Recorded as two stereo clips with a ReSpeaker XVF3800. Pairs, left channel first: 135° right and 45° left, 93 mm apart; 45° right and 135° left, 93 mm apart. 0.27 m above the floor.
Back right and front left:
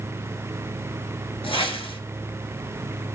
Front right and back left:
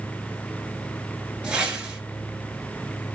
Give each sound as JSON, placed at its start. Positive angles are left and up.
{"t": 1.4, "sound": "a whoosh", "azimuth_deg": -145, "distance_m": 1.1}